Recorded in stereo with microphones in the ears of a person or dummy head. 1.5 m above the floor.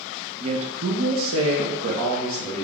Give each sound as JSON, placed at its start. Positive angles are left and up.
{"t": 0.4, "sound": "a woman speaking", "side_deg": -40, "distance_m": 0.8}